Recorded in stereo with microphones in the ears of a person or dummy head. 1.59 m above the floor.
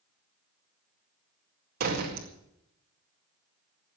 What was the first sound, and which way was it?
A door slam, 50° right (ahead or behind).